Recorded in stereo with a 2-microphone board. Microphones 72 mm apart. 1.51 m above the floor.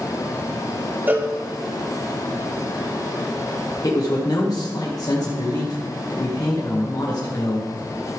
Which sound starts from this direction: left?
A man speaking, at 3.8 s.